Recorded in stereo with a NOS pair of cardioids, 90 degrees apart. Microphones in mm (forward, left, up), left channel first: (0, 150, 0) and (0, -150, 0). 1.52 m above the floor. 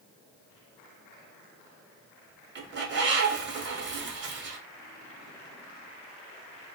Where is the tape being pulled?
No tape being pulled in this recording.